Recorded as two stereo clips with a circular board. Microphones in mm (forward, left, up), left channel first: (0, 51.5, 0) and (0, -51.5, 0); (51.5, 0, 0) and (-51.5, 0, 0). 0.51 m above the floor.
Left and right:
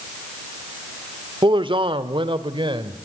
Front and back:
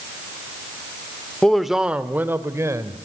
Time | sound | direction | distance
1.4 | a man speaking | 80° right | 1.1 m